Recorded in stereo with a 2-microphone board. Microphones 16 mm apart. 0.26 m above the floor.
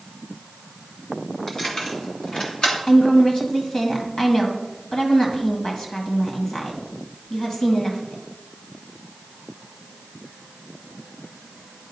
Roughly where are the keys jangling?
Left.